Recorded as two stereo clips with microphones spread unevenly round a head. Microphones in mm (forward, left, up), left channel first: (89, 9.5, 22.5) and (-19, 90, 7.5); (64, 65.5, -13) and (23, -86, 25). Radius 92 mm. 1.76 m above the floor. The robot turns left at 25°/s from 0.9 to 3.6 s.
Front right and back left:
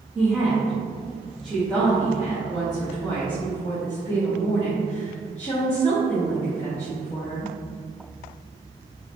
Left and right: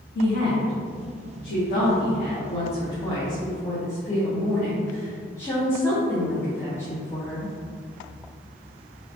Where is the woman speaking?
65° left, 1.1 m; by 7.5 s 5° right, 1.1 m.